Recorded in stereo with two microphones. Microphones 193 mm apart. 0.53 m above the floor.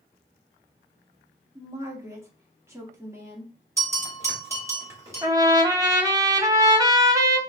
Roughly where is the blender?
No blender in this recording.